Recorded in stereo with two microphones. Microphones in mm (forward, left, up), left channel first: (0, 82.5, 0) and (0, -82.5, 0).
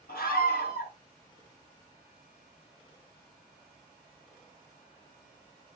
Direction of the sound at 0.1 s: 70° left (ahead or behind).